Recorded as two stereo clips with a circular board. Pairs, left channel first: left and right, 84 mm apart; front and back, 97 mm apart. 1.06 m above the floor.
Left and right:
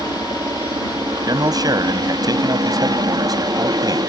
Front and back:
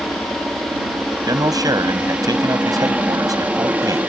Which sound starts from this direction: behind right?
A man speaking, at 1.3 s.